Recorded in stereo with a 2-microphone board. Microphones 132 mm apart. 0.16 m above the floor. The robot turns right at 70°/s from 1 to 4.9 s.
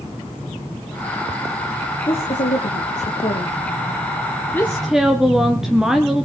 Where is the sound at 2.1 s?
40° left, 3.5 m; by 3.6 s 145° left, 3.5 m.